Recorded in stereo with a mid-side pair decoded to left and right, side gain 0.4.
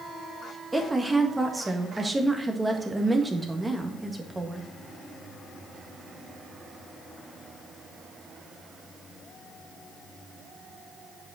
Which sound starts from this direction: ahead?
A woman speaking, at 0.7 s.